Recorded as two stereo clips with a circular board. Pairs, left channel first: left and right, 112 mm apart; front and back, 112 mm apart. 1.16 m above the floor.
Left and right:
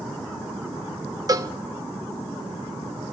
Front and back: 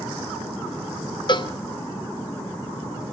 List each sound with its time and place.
1.3 s a cowbell: 40° right, 0.7 m